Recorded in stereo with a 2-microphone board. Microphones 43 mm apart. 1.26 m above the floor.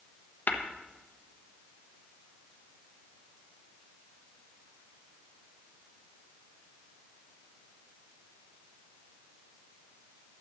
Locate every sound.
0.5 s tapping: 55° left (ahead or behind), 1.1 m